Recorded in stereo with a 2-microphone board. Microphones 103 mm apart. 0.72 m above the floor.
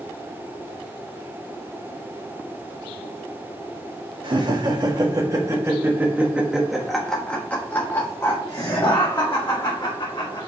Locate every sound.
4.2 s laughter: 50° right (ahead or behind), 1.7 m; by 10.5 s 50° left (ahead or behind), 2.5 m